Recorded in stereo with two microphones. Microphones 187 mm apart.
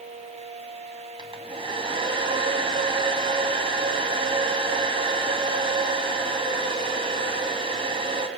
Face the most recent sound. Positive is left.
turn(degrees=-30)  # may be behind; listen again after turning